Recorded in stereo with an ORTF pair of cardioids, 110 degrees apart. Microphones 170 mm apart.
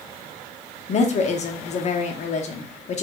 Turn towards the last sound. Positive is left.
turn(degrees=45)